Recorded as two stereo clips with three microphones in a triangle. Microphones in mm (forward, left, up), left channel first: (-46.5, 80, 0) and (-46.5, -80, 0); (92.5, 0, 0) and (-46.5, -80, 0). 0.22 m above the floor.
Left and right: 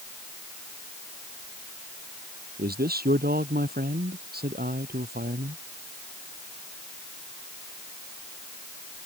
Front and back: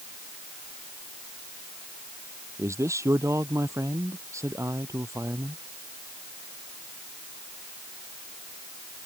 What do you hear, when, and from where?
2.6 s a man speaking: 80° right